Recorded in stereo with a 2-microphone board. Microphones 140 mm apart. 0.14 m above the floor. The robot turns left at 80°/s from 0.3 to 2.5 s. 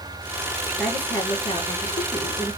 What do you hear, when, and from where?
0.8 s a woman speaking: 175° right, 2 m; by 2.6 s 45° left, 2 m